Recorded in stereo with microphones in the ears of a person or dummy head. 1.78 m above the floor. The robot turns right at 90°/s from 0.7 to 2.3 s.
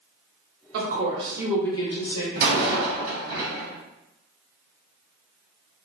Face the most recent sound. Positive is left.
turn(degrees=-50)  # may be behind; listen again after turning